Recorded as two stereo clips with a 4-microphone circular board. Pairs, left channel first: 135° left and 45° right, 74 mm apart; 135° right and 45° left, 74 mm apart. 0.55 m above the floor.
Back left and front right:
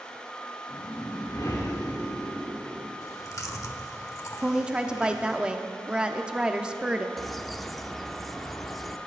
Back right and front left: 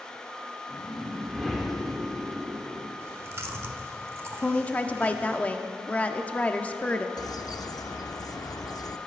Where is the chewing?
95° left, 0.9 m.